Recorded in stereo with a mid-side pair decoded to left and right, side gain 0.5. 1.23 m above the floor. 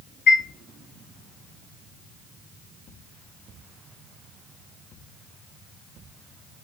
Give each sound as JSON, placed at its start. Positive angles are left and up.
{"t": 0.3, "sound": "a chime", "azimuth_deg": 55, "distance_m": 2.5}